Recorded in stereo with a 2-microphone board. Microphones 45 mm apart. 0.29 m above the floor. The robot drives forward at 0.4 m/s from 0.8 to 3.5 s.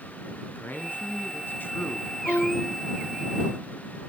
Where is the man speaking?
45° left (ahead or behind), 2.5 m; by 2.1 s 55° left (ahead or behind), 2 m.